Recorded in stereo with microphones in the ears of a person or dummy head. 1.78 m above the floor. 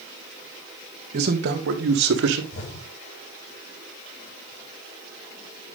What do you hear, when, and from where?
1.1 s a man speaking: 40° right (ahead or behind), 2 m; by 2.4 s 70° right (ahead or behind), 2.5 m
2.5 s an explosion: 70° left (ahead or behind), 6.5 m